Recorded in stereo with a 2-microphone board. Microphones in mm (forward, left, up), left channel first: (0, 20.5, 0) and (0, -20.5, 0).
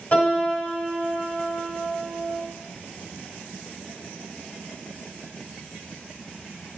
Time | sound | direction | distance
0.1 | a piano | 35° left (ahead or behind) | 0.9 m